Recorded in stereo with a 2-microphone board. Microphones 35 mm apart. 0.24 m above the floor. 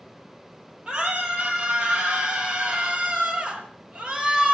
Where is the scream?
25° right (ahead or behind), 6 m; by 4.6 s 20° right (ahead or behind), 4 m.